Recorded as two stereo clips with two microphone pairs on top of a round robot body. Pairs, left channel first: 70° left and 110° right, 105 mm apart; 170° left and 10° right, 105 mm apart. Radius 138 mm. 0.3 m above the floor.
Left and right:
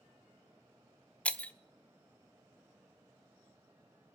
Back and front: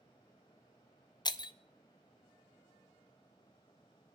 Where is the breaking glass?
155° left, 0.8 m.